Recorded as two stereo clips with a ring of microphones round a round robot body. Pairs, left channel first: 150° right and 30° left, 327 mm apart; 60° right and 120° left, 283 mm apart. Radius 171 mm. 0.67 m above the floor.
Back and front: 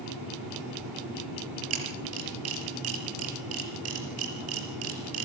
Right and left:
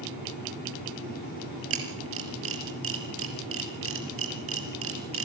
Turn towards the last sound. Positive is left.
turn(degrees=80)